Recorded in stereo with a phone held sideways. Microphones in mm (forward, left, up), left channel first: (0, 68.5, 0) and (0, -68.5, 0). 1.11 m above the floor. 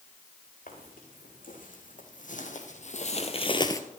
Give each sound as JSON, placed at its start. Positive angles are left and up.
{"t": 0.7, "sound": "footsteps", "side_deg": 75, "distance_m": 5.0}